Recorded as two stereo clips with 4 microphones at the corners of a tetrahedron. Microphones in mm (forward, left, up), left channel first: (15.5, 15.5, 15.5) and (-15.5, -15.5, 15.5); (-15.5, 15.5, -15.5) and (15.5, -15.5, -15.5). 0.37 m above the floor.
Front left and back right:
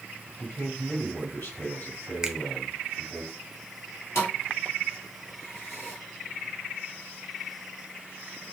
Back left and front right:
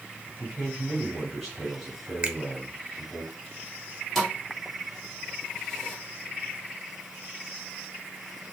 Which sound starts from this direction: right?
A finger snap, at 2.2 s.